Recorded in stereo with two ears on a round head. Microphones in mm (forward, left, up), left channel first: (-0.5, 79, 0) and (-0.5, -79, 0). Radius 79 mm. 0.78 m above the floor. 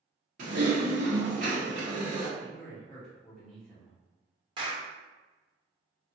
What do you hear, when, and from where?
0.4 s typing on a keyboard: 50° right (ahead or behind), 1.1 m
2.4 s a man speaking: centre (ahead or behind), 1.4 m
4.6 s a clap: 25° right (ahead or behind), 0.8 m